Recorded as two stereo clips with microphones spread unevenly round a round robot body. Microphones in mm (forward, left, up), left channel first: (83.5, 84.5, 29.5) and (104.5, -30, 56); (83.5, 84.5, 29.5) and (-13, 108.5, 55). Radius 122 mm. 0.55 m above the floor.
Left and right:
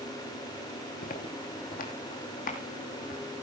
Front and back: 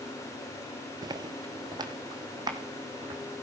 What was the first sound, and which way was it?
Footsteps, 140° left.